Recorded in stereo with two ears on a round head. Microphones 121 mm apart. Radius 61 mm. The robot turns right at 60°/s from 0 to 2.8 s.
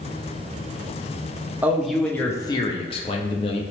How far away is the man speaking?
About 0.5 m.